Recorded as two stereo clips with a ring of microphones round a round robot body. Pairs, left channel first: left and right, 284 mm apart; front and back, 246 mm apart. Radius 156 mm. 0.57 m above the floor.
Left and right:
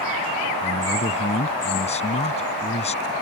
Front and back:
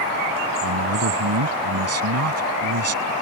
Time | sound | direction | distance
0.6 | a man speaking | 160° left | ?